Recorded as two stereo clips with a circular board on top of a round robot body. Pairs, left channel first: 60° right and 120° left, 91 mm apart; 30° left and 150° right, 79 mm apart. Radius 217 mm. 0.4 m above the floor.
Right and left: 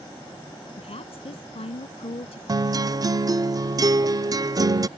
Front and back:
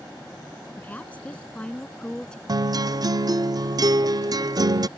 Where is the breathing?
No breathing in this recording.